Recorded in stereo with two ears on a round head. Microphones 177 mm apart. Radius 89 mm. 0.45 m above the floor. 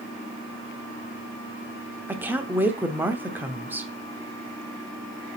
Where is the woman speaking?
10° right (ahead or behind), 0.8 m.